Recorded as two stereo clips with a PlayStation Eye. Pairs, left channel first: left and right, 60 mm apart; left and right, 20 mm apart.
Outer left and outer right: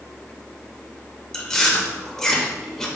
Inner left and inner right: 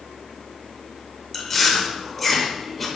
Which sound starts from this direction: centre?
Chewing, at 1.3 s.